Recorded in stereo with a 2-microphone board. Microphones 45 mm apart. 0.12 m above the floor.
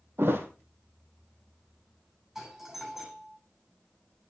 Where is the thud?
55° right (ahead or behind), 2.5 m.